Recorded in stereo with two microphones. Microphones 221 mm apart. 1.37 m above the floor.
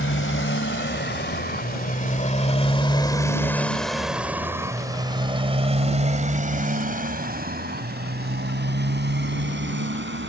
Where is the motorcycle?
60° left (ahead or behind); by 10.3 s 55° right (ahead or behind).